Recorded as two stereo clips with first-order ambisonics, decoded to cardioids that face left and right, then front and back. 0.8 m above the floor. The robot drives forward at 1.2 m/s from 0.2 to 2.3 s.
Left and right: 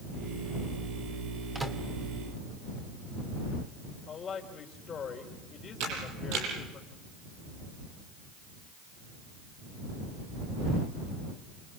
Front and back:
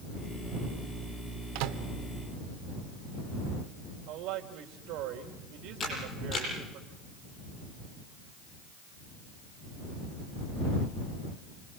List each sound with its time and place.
1.6 s a microwave: 170° right, 1.9 m
4.1 s a woman speaking: 155° left, 3 m
5.8 s a camera shutter: 70° right, 9 m